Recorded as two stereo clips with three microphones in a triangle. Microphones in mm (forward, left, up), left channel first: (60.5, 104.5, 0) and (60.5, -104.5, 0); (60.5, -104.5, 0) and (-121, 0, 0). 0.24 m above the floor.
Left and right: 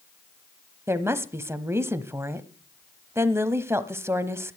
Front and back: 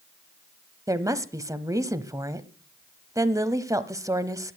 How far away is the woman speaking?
About 1.0 m.